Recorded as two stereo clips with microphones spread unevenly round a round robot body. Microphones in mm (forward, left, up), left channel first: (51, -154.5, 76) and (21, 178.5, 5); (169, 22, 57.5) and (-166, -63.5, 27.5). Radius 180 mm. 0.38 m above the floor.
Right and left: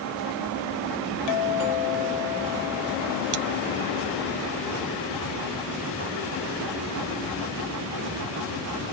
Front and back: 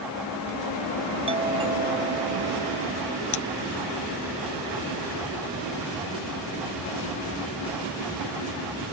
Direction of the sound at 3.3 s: 60° left.